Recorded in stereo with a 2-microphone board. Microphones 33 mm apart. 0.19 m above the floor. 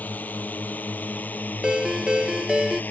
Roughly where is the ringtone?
Centre.